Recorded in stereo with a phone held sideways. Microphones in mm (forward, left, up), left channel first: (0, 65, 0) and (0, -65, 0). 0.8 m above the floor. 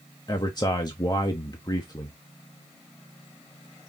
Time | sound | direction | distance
0.3 | a man speaking | 35° left (ahead or behind) | 0.5 m